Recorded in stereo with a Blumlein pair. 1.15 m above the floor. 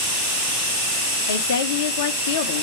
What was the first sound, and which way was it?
A woman speaking, 60° left.